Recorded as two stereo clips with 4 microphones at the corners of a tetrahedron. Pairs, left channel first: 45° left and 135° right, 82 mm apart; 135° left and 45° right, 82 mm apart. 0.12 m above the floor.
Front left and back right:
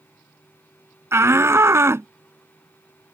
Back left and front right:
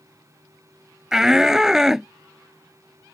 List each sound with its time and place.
1.1 s a shout: 125° right